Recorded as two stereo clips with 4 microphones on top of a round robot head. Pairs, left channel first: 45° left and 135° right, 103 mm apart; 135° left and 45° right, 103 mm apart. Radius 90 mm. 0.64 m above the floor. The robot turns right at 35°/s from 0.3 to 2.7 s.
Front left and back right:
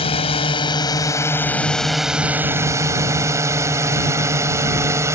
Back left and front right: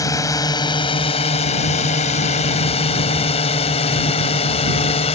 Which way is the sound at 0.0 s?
75° left.